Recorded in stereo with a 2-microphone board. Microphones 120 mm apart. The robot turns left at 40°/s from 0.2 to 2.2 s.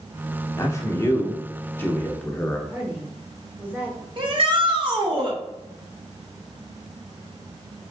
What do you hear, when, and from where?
0.6 s a man speaking: 25° left (ahead or behind), 0.8 m; by 2.6 s 10° left (ahead or behind), 0.8 m
2.7 s a woman speaking: 15° right (ahead or behind), 1.2 m
4.2 s a shout: 45° right (ahead or behind), 1.3 m